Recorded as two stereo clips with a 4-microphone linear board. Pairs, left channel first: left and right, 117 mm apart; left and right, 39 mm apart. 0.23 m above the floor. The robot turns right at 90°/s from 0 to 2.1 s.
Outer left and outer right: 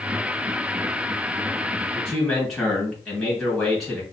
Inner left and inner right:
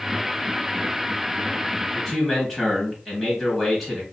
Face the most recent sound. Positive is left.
turn(degrees=0)  # may be behind; listen again after turning